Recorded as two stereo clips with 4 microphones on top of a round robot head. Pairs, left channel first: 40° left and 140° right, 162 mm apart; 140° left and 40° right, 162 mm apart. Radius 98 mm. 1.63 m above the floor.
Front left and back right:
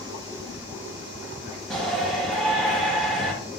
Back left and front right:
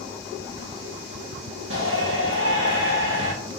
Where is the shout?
50° right, 1.9 m.